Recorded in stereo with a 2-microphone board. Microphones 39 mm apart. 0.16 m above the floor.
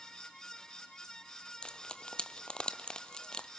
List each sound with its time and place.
1.6 s frying: 25° left (ahead or behind), 0.9 m